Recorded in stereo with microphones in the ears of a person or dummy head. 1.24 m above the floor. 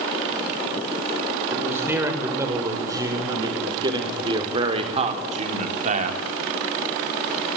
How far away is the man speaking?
About 6 m.